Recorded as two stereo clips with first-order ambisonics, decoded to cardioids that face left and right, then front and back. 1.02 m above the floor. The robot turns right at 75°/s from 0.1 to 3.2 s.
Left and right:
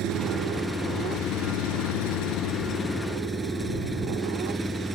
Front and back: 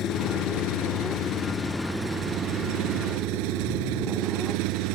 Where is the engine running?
45° right; by 5.0 s 170° right.